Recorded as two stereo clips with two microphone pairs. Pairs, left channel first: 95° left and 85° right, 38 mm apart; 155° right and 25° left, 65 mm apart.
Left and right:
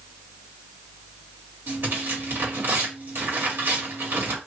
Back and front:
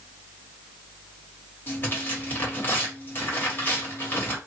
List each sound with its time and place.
1.7 s tearing paper: 95° right, 1.5 m